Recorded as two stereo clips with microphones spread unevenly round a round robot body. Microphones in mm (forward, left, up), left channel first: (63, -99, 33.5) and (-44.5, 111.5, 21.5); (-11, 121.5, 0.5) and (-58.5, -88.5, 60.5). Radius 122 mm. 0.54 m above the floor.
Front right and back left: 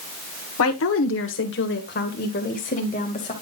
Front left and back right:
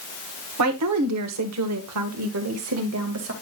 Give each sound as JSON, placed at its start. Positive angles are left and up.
{"t": 0.6, "sound": "a woman speaking", "azimuth_deg": -85, "distance_m": 1.7}